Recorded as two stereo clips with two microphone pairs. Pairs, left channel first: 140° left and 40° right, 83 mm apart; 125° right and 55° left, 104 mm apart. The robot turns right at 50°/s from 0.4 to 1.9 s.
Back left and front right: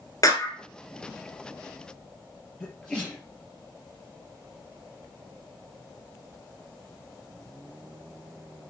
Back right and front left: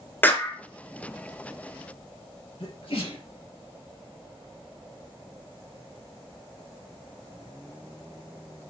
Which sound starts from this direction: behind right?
A sneeze, at 2.6 s.